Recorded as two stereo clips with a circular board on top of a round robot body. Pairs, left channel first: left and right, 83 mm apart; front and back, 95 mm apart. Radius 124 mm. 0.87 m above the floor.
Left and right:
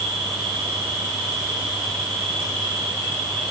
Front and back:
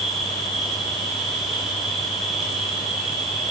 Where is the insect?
90° right, 10 m.